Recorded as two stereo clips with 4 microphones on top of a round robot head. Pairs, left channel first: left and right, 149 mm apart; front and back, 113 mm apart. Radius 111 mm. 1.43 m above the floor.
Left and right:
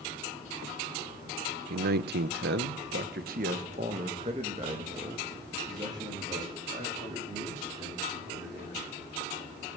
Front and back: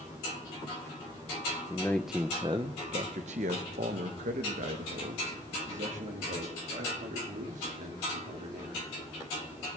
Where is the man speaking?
70° right, 0.6 m; by 9.0 s 165° right, 4 m.